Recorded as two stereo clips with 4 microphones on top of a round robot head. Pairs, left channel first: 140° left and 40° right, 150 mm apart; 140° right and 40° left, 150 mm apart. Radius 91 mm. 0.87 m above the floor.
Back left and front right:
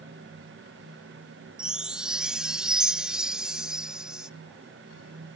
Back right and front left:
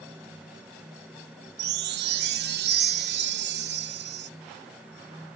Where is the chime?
45° left.